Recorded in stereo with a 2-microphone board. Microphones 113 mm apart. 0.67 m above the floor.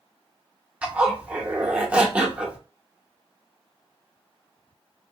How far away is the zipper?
About 0.7 m.